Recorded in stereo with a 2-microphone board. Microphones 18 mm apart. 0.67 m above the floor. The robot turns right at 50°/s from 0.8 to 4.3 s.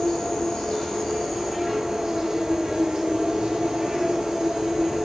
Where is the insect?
150° left, 1.1 m; by 5.1 s 35° right, 1.1 m.